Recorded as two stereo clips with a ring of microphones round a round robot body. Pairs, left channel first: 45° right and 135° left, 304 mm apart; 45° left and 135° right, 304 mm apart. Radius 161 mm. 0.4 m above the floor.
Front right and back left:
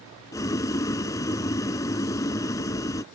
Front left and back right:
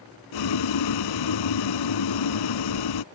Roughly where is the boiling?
Ahead left.